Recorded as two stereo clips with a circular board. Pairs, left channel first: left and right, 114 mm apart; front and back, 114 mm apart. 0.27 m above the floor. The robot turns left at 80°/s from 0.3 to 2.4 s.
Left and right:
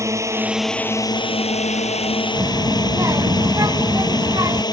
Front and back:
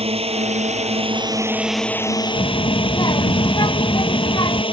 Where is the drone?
155° right; by 4.7 s 40° left.